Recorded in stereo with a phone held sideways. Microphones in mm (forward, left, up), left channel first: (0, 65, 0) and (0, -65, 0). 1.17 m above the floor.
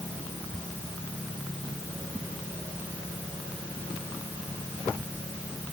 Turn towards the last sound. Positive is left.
No sound to turn to.